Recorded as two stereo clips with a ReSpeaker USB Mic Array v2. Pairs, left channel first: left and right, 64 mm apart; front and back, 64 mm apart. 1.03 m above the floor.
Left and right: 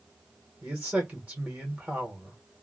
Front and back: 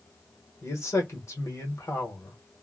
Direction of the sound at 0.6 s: 30° right.